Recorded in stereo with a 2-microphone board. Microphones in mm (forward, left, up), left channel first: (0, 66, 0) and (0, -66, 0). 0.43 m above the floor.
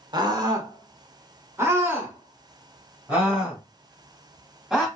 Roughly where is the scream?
Right.